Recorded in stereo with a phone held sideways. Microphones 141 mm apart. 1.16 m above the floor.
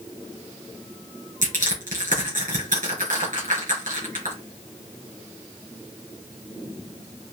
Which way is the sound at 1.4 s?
75° right (ahead or behind).